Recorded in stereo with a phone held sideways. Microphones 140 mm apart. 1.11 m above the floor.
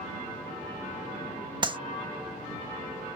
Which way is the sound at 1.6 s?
30° right (ahead or behind).